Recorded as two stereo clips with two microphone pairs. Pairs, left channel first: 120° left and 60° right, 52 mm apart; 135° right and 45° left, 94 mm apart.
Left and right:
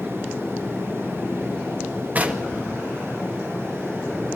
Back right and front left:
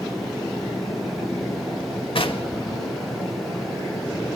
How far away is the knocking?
About 2 m.